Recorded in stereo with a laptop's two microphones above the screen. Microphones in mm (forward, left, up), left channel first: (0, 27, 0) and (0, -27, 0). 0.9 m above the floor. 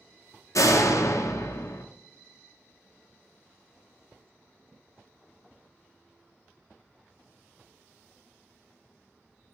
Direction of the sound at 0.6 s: 80° left.